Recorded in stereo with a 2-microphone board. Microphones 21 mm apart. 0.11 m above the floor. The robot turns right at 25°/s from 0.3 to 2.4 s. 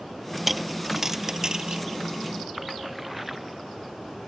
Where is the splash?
10° right (ahead or behind).